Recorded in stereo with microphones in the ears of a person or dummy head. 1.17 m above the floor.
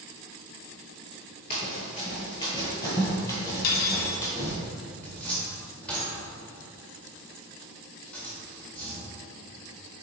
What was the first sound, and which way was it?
Running footsteps, 20° left (ahead or behind).